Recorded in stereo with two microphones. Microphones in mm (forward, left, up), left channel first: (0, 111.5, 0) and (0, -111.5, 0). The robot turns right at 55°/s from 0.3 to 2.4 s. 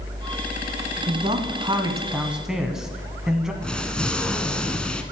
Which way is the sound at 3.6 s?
5° left (ahead or behind).